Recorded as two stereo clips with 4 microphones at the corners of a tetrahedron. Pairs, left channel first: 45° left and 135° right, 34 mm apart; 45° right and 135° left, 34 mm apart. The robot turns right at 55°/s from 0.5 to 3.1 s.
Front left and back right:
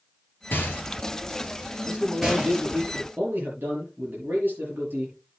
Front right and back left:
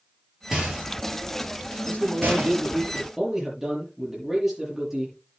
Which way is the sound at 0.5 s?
60° left.